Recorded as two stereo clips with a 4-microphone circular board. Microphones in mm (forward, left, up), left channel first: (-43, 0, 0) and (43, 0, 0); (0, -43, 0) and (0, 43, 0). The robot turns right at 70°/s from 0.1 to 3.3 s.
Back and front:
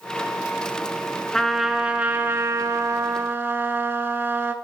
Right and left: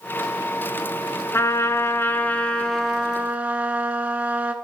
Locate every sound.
1.3 s a trumpet: 105° right, 0.5 m; by 4.5 s 35° left, 0.5 m